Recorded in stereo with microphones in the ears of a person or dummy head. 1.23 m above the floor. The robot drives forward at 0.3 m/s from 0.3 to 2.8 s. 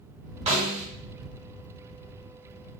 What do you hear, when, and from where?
0.5 s a snare drum: 30° right (ahead or behind), 0.7 m; by 0.8 s 25° right (ahead or behind), 0.8 m